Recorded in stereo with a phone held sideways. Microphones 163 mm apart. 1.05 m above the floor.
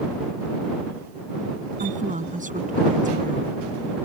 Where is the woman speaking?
50° right (ahead or behind).